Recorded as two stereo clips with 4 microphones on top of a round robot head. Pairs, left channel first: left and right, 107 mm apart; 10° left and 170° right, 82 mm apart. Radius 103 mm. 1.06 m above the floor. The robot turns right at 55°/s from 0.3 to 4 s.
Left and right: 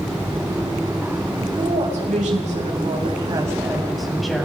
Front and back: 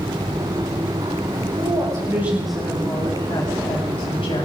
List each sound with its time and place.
1.6 s a woman speaking: 135° right, 8 m; by 4.5 s straight ahead, 8 m